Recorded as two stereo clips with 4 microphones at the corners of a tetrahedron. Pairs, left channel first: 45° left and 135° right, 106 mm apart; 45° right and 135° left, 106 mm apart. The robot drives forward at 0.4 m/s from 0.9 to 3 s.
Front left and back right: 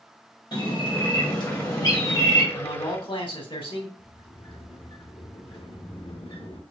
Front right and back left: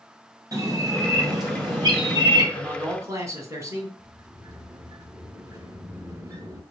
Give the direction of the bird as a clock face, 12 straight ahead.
9 o'clock.